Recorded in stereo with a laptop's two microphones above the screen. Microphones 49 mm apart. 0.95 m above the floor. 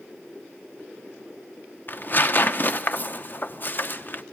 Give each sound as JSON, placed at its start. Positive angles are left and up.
{"t": 1.9, "sound": "tearing paper", "side_deg": 40, "distance_m": 0.7}